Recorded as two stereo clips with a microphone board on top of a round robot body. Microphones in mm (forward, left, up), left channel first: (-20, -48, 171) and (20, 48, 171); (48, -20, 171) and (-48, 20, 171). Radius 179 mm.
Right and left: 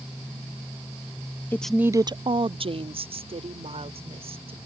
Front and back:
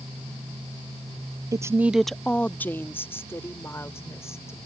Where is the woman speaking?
170° right; by 4.6 s 40° left.